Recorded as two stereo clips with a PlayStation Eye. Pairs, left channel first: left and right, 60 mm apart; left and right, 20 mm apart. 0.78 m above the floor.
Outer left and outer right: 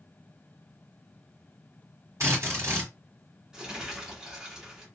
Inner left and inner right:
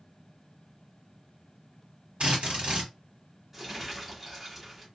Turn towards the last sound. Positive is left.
turn(degrees=-10)  # may be behind; listen again after turning